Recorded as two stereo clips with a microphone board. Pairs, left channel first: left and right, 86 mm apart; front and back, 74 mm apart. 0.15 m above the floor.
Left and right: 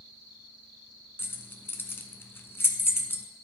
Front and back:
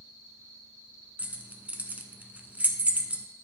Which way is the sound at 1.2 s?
130° left.